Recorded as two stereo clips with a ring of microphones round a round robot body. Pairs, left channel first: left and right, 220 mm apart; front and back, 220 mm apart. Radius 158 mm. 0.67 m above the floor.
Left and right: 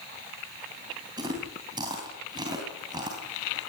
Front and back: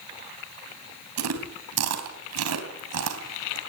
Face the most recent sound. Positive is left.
turn(degrees=-165)